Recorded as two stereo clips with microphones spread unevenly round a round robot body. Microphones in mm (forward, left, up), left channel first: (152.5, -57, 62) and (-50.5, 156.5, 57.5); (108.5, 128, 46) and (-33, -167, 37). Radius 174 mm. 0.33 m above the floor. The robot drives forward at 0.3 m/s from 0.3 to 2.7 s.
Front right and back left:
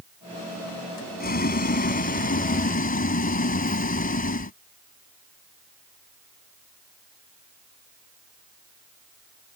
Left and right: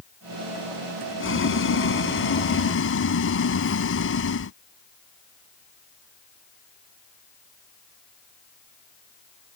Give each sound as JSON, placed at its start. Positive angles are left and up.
{"t": 1.2, "sound": "boiling", "azimuth_deg": 15}